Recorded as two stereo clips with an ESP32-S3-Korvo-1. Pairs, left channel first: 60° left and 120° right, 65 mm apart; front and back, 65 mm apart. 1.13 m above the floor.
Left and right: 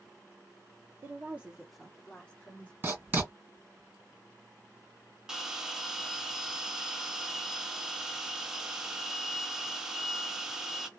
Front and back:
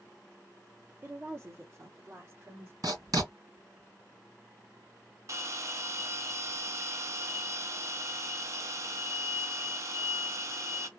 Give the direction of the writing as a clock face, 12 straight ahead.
6 o'clock.